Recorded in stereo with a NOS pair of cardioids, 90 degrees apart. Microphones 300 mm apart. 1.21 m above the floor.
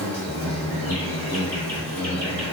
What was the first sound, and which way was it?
An insect, 5° left.